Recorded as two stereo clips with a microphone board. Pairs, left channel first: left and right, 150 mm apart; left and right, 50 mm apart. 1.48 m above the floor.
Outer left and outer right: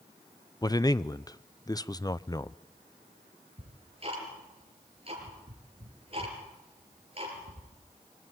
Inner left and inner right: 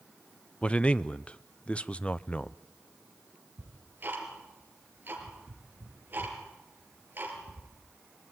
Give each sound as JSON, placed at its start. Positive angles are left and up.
{"t": 0.6, "sound": "a man speaking", "side_deg": 25, "distance_m": 0.5}
{"t": 3.6, "sound": "ticking", "side_deg": -40, "distance_m": 4.5}